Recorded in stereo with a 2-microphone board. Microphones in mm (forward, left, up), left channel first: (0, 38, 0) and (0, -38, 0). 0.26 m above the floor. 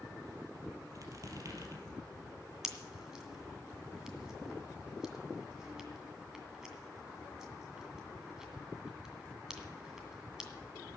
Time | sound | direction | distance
0.9 | a squeak | 50° right (ahead or behind) | 3 m
2.6 | a pop | 10° right (ahead or behind) | 2 m